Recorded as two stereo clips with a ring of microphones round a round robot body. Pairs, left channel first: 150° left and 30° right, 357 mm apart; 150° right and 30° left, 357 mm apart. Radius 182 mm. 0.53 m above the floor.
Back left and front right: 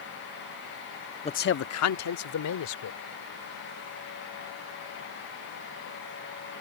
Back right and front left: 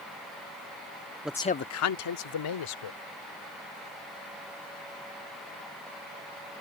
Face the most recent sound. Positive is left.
turn(degrees=-170)